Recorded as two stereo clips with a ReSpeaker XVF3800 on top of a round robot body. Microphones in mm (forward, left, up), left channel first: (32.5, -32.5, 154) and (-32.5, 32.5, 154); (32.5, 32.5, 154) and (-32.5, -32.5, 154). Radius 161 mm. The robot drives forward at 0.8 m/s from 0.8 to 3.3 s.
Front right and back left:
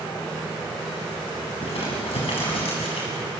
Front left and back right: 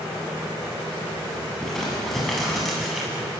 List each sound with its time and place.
1.6 s crumpling: 40° right, 8.5 m; by 3.2 s 45° right, 7.5 m